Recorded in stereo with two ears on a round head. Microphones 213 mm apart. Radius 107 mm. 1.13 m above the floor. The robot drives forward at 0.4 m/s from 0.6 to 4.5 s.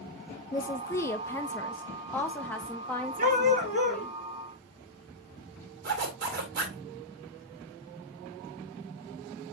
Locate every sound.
0.5 s a woman speaking: 15° left (ahead or behind), 0.8 m; by 4.2 s 5° left (ahead or behind), 2 m
3.2 s a dog barking: 35° right (ahead or behind), 3.5 m
5.8 s a zipper: 45° right (ahead or behind), 3 m